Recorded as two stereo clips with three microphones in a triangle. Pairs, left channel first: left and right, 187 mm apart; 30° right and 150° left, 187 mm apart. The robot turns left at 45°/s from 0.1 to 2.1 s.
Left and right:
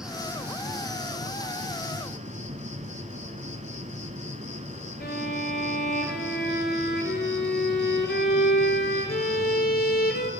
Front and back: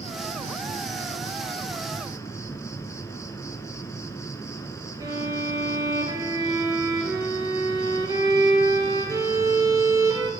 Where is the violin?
85° left, 1.8 m.